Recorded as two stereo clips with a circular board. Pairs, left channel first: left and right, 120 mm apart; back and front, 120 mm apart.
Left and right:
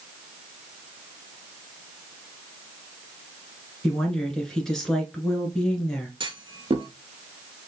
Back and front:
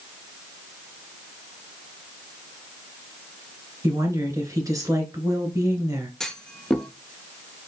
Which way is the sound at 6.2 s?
95° right.